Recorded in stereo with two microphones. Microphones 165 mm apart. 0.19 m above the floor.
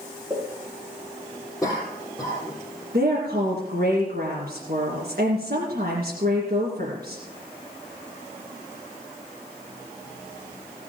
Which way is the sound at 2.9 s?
60° right (ahead or behind).